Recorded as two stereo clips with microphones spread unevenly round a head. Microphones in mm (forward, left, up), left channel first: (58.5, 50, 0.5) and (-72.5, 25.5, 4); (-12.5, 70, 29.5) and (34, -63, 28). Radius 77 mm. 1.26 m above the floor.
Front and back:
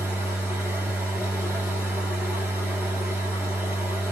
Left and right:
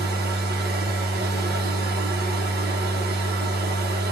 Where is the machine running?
85° right, 1.5 m.